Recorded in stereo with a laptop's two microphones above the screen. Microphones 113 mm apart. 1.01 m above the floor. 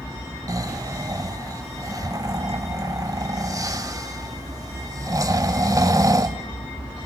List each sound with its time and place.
0.5 s snoring: 30° right (ahead or behind), 1.0 m